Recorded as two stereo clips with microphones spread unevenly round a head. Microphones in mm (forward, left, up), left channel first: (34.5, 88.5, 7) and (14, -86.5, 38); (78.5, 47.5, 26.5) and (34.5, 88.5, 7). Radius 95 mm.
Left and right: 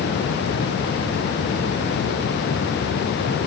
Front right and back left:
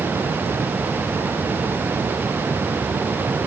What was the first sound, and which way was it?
Only background noise.